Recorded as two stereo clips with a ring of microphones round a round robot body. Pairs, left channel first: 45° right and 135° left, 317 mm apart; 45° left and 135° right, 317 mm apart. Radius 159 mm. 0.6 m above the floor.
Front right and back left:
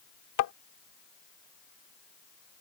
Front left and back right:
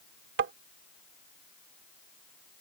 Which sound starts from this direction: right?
Tapping, at 0.4 s.